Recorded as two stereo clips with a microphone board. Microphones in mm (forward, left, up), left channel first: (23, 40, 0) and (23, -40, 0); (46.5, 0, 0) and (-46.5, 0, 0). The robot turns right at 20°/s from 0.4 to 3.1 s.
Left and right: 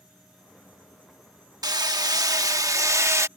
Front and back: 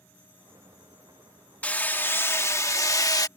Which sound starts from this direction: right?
Hammering, at 1.6 s.